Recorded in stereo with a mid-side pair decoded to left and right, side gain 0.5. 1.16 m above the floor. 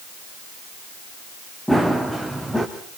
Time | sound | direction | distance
1.7 | running footsteps | 5° left | 4 m